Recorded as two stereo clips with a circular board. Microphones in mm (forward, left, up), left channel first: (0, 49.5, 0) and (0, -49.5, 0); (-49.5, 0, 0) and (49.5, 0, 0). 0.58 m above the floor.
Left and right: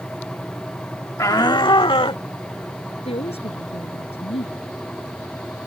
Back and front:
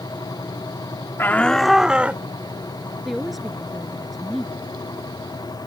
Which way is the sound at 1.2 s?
130° left.